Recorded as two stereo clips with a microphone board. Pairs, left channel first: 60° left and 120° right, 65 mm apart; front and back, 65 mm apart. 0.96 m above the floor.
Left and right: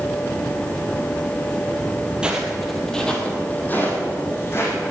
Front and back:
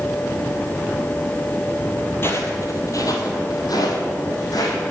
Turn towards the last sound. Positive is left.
turn(degrees=10)